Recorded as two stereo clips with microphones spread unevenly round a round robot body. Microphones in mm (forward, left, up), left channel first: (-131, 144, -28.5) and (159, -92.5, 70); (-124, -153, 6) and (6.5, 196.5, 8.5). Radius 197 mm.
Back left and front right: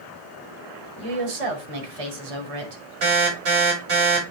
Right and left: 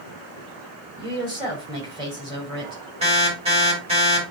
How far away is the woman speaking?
About 2.5 m.